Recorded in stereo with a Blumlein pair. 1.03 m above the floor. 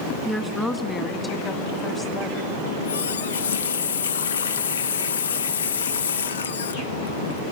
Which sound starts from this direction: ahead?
A woman speaking, at 0.2 s.